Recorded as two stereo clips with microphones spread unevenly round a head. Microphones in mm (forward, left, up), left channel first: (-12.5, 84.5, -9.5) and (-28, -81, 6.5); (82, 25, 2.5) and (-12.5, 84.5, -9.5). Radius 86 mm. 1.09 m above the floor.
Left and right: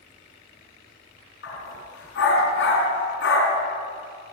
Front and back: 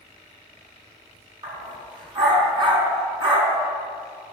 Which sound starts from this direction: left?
A dog barking, at 1.4 s.